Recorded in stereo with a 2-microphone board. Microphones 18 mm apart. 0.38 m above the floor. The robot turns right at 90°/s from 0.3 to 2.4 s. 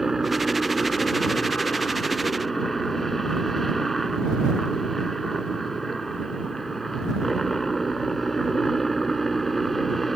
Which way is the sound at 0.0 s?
20° right.